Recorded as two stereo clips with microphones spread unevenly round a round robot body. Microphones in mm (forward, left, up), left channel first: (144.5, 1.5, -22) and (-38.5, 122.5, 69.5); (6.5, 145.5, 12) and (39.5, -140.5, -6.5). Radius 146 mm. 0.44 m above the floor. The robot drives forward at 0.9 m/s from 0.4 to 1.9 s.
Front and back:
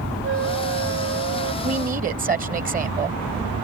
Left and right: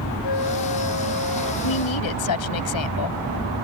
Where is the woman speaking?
80° left; by 3.2 s 85° left.